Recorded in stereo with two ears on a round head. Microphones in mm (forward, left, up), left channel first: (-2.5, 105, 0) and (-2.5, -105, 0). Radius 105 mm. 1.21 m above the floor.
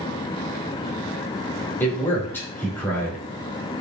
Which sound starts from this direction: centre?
A man speaking, at 1.8 s.